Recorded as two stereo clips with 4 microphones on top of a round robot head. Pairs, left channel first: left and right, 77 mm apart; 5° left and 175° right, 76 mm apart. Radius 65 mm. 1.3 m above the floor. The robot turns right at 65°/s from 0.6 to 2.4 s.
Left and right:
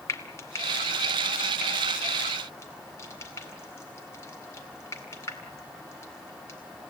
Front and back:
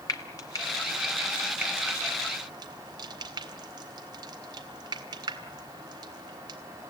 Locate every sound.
0.1 s frying: 40° left, 2 m; by 6.6 s 155° left, 2 m